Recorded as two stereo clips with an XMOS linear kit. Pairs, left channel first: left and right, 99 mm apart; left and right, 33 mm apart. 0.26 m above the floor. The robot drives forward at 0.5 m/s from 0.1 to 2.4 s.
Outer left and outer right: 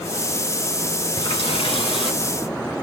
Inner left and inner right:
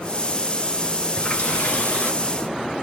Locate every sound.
1.2 s a running tap: 65° left (ahead or behind), 2.5 m; by 2.9 s 55° left (ahead or behind), 2.5 m